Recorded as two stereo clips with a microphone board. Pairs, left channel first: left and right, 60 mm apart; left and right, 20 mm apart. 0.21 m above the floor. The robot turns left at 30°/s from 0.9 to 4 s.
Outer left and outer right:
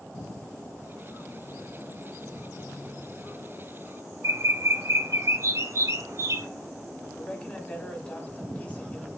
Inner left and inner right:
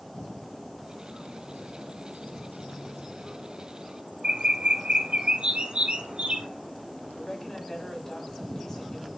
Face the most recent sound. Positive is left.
turn(degrees=20)  # may be behind; listen again after turning